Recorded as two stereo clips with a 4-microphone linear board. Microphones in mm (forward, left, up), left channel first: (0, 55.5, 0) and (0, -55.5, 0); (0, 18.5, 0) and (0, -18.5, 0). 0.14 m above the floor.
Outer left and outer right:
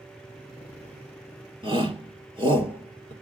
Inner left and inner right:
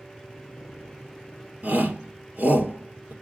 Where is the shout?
45° right (ahead or behind), 3 m.